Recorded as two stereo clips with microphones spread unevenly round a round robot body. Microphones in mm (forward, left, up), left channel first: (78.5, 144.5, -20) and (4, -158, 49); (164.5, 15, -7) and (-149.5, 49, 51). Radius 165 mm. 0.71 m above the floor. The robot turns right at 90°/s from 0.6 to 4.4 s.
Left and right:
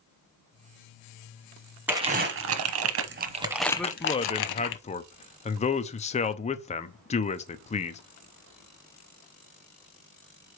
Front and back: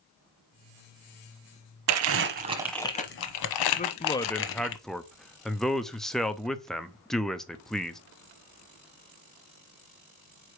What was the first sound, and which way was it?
Crumpling, straight behind.